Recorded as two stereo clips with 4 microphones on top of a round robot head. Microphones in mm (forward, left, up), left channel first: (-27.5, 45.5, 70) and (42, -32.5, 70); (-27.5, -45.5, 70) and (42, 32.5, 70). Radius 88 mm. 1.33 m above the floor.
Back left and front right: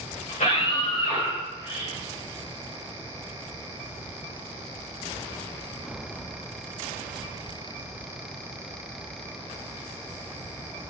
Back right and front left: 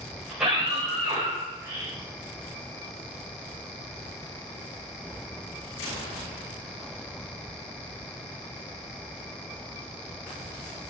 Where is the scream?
135° left, 5.5 m; by 1.9 s 115° left, 6.5 m.